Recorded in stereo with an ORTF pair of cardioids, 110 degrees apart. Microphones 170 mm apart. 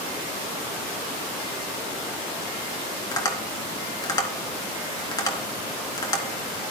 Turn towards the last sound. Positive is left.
turn(degrees=25)